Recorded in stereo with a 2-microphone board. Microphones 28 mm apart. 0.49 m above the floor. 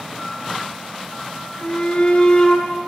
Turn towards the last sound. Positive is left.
turn(degrees=40)  # may be behind; listen again after turning